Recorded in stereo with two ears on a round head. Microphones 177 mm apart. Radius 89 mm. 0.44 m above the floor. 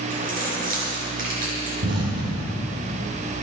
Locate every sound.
0.1 s keys jangling: 45° right (ahead or behind), 4.5 m
1.8 s an explosion: 55° right (ahead or behind), 4 m